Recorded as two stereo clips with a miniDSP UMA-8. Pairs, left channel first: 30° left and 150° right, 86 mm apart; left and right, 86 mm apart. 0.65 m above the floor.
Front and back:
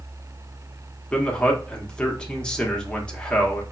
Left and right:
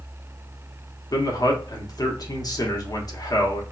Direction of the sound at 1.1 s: 105° left.